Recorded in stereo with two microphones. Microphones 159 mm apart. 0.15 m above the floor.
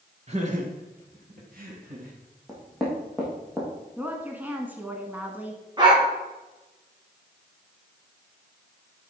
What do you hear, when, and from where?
0.3 s laughter: 40° right (ahead or behind), 2 m; by 2.1 s 65° right (ahead or behind), 3 m
2.5 s knocking: centre (ahead or behind), 4 m
4.0 s a woman speaking: 10° right (ahead or behind), 1.3 m
5.8 s a dog barking: 25° right (ahead or behind), 4 m